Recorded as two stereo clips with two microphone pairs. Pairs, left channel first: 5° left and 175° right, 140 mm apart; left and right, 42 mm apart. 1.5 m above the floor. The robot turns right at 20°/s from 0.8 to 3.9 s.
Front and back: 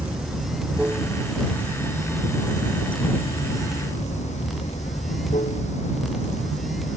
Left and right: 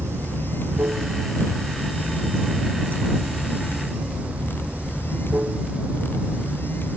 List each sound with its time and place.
0.0 s running water: 95° right; by 7.0 s 35° right